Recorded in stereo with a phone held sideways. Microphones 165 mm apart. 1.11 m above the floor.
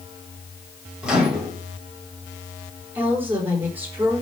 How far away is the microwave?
About 3 m.